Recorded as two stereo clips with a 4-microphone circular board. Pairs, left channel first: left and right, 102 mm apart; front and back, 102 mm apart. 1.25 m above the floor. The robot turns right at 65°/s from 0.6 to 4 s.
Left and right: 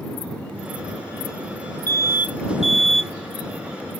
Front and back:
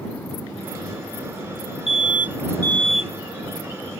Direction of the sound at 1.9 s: 20° left.